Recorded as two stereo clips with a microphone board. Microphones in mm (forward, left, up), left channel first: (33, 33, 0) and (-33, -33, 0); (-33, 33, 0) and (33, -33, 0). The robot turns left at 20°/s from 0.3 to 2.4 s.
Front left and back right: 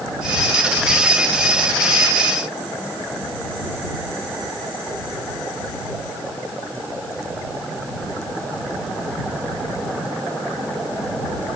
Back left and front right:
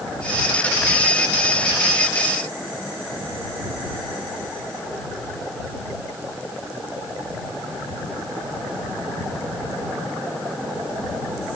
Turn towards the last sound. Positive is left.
No sound to turn to.